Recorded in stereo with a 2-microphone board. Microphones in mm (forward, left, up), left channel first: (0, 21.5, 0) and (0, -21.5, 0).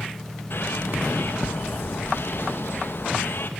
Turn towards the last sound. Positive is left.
turn(degrees=60)  # may be behind; listen again after turning